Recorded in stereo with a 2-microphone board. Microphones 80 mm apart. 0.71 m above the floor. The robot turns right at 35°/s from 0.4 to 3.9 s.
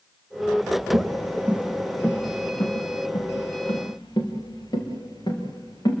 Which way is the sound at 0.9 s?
60° right (ahead or behind).